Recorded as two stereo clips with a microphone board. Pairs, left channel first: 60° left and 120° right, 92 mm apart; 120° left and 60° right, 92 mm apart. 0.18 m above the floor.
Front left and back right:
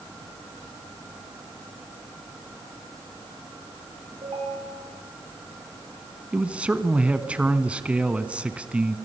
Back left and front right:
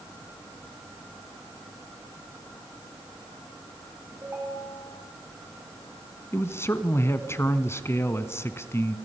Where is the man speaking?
170° left, 1.4 m.